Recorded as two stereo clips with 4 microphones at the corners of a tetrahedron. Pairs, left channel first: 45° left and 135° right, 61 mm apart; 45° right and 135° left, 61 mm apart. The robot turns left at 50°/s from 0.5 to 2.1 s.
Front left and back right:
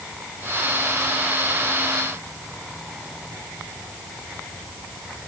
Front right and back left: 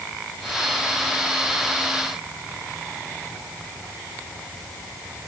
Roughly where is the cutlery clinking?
No cutlery clinking in this recording.